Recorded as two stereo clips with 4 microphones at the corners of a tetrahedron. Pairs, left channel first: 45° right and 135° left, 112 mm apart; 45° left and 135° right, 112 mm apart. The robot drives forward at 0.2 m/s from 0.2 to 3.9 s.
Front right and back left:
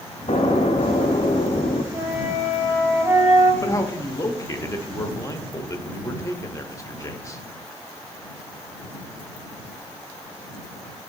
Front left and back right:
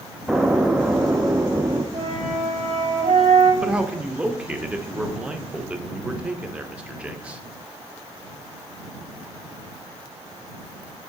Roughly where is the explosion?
Ahead right.